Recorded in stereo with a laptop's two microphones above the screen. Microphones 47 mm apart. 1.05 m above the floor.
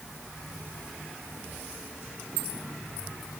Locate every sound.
Only background noise.